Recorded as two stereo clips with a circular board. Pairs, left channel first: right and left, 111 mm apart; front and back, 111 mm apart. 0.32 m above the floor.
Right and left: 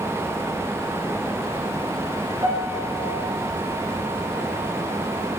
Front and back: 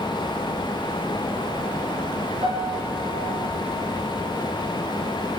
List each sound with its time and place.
2.4 s a piano: 145° left, 4 m